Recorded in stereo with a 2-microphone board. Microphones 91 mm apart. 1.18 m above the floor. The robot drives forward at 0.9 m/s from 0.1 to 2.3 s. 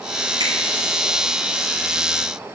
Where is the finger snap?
80° right, 3 m.